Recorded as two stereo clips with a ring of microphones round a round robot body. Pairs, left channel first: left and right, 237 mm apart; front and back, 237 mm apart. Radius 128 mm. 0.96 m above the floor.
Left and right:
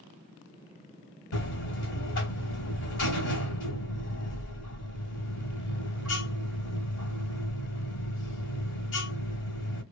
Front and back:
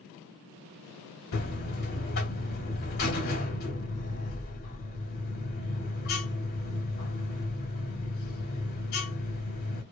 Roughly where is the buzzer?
Ahead left.